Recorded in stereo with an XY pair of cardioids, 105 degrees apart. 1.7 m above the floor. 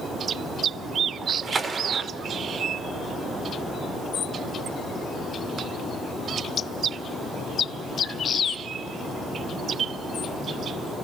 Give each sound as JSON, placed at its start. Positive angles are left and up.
{"t": 1.2, "sound": "a splash", "azimuth_deg": -35, "distance_m": 0.5}